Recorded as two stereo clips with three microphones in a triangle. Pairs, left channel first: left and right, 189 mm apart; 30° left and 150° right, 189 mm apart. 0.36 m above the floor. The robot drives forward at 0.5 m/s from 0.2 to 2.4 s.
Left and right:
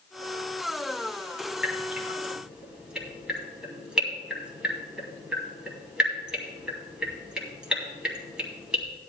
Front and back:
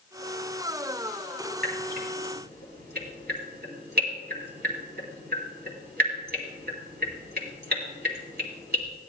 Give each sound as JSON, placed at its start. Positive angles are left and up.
{"t": 1.6, "sound": "dripping", "azimuth_deg": -175, "distance_m": 2.0}